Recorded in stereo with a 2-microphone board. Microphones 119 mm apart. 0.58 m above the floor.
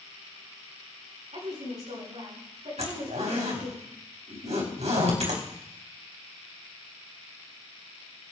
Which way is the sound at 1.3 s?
70° right (ahead or behind).